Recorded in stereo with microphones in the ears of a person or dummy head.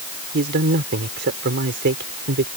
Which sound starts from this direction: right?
A man speaking, at 0.3 s.